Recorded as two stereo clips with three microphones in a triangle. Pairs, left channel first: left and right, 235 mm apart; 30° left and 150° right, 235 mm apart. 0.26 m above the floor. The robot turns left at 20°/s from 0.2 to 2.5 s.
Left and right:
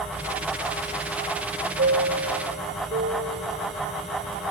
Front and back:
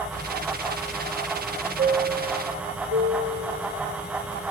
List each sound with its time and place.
1.8 s a chime: 110° right, 1.7 m; by 4.5 s 125° right, 1.7 m